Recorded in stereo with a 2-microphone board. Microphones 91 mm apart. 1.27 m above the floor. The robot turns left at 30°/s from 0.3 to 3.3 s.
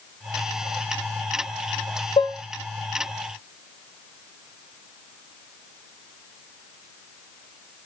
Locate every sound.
2.2 s dishes clattering: 60° left (ahead or behind), 0.8 m; by 2.4 s 55° left (ahead or behind), 0.8 m